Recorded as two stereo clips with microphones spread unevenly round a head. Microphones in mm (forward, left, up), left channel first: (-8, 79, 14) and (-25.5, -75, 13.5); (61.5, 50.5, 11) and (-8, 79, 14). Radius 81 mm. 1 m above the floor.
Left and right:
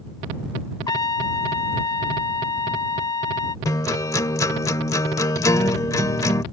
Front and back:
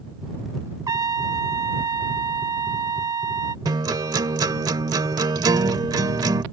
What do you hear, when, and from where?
0.9 s a trumpet: 145° left
3.6 s a guitar: 150° left